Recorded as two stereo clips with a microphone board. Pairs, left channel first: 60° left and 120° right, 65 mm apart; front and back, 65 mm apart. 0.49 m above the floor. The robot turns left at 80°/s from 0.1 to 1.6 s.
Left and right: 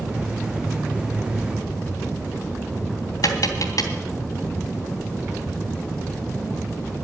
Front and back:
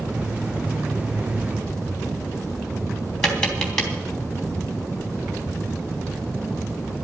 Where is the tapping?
80° left, 3 m.